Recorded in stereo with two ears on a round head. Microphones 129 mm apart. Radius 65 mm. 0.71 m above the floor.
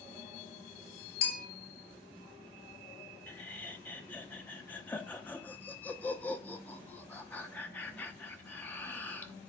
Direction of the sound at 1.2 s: 80° left.